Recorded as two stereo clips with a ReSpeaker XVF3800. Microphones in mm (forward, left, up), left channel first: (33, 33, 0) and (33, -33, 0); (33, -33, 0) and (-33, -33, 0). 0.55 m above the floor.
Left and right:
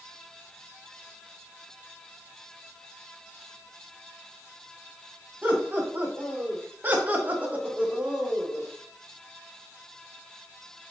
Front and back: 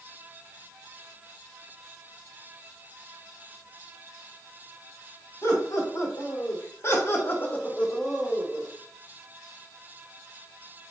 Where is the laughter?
30° right, 2 m; by 8.7 s straight behind, 0.8 m.